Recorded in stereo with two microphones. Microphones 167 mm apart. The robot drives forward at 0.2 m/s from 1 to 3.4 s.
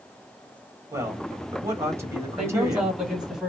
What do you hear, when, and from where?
0.9 s a man speaking: 15° right (ahead or behind), 1.4 m
2.4 s a man speaking: 5° right (ahead or behind), 1.4 m; by 3.5 s centre (ahead or behind), 1.5 m